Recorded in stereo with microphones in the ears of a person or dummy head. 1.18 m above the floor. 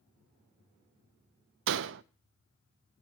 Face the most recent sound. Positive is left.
turn(degrees=-70)  # may be behind; listen again after turning